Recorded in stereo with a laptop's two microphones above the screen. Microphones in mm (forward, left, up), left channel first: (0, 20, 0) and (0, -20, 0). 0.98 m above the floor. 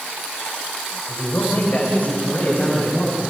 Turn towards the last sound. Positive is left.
turn(degrees=50)  # may be behind; listen again after turning